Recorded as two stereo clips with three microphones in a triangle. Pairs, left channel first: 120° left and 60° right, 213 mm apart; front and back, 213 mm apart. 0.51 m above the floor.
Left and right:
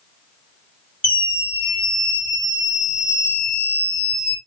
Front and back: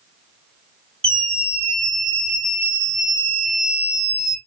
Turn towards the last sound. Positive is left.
turn(degrees=160)